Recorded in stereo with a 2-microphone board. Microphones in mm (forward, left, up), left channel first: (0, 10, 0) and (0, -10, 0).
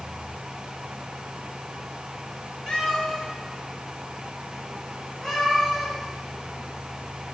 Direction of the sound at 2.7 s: 35° left (ahead or behind).